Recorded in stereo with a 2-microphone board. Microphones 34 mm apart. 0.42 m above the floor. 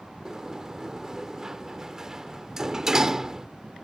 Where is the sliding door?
20° right (ahead or behind).